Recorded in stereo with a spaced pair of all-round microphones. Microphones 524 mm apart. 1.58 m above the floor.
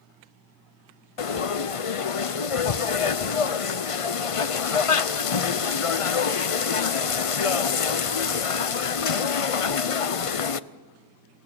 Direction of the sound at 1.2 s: 80° left.